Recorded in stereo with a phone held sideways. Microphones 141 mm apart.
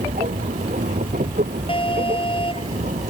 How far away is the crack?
No crack in this recording.